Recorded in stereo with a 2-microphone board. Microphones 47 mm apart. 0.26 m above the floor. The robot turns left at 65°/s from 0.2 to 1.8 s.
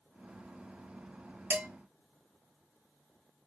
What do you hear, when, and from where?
1.5 s dishes clattering: 50° right (ahead or behind), 1.2 m; by 1.6 s 55° right (ahead or behind), 1.2 m